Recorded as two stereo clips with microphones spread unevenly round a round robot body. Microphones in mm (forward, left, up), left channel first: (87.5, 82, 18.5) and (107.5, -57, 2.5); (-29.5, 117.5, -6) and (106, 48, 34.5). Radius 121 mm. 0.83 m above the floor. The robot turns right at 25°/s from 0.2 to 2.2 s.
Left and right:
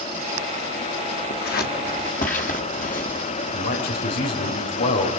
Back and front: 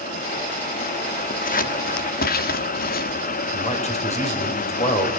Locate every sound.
1.3 s scissors: 130° left, 1.3 m; by 3.2 s 155° left, 1.3 m
3.5 s a man speaking: 110° left, 4 m